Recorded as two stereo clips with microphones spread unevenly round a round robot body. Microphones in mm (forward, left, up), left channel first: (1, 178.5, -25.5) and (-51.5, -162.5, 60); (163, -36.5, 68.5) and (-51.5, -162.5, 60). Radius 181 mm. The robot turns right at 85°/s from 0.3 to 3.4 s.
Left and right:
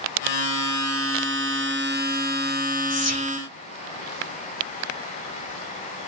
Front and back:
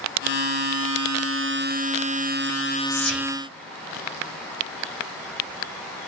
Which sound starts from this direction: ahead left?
Whispering, at 2.9 s.